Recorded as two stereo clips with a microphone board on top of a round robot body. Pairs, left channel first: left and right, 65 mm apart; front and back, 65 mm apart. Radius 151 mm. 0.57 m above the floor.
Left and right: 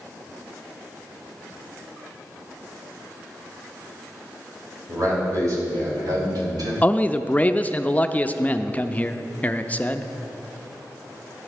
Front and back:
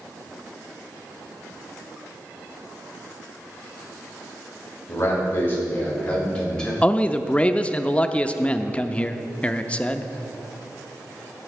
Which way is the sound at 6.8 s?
50° left.